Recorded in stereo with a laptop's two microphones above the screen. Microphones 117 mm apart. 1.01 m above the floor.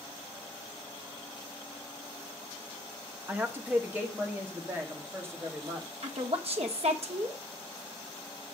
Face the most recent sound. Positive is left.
turn(degrees=-60)  # may be behind; listen again after turning